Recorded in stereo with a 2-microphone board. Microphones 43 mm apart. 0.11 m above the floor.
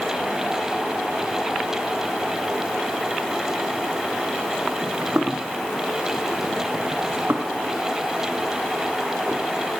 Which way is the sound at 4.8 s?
55° right (ahead or behind).